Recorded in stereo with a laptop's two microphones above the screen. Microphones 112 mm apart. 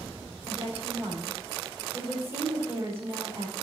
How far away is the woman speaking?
About 4.5 m.